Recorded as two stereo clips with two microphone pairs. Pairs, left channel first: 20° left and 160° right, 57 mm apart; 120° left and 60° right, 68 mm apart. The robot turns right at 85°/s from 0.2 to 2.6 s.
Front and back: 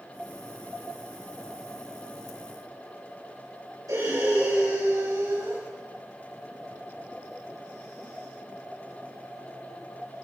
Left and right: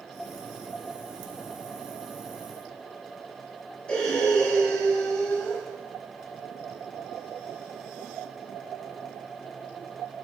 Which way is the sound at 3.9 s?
165° right.